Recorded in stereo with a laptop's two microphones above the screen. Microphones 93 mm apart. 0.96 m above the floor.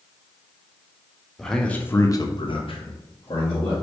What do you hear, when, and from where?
1.4 s a man speaking: 5° left (ahead or behind), 0.9 m; by 3.7 s 55° left (ahead or behind), 1.2 m